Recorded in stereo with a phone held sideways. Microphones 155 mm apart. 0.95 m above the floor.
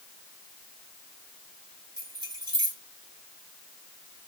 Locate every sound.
2.0 s keys jangling: 30° right (ahead or behind), 1.6 m